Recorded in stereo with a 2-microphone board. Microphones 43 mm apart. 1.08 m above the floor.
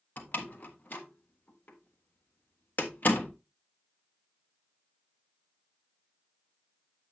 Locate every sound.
0.2 s a door slam: 45° left (ahead or behind), 1.1 m